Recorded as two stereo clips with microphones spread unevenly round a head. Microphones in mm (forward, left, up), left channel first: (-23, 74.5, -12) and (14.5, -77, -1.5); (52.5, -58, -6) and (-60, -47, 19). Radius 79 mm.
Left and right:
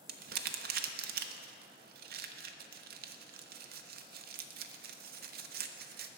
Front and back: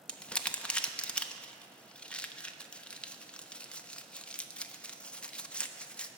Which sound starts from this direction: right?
Crumpling, at 0.1 s.